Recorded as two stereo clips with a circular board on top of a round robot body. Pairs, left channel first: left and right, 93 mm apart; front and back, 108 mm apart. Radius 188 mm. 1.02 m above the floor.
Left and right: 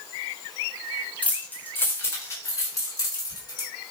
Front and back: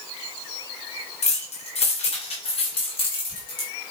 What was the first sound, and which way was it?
Keys jangling, 15° left.